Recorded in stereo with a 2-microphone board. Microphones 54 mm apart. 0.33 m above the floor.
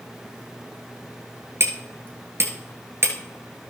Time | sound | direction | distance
1.6 | hammering | 55° right (ahead or behind) | 1.7 m